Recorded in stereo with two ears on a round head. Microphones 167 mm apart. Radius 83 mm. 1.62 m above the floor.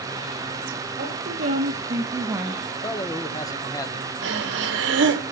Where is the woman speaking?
45° right (ahead or behind), 3 m; by 2.6 s centre (ahead or behind), 1.6 m.